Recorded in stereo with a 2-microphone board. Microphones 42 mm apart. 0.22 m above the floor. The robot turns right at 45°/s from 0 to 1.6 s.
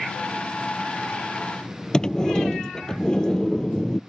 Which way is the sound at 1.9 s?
20° left (ahead or behind).